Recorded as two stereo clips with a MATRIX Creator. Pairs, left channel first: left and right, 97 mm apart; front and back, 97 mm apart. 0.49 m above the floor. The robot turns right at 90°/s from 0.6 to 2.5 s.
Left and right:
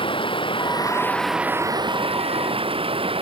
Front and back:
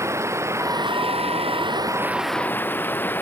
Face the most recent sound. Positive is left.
turn(degrees=-70)